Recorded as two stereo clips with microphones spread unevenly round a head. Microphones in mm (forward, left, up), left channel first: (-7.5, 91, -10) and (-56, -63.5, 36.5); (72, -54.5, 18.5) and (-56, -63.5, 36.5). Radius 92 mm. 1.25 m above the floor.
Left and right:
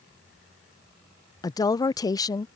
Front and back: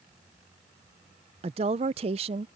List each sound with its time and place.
1.4 s a woman speaking: 130° left